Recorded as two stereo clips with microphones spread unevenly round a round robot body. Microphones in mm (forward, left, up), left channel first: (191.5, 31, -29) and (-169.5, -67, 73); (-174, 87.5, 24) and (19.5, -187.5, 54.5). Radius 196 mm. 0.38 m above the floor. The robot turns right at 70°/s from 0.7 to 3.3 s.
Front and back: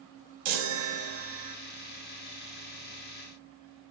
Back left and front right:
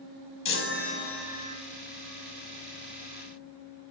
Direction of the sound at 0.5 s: Straight behind.